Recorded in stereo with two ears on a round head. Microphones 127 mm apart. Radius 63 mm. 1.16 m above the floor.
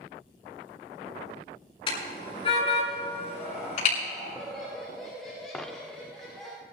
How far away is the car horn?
About 6.5 m.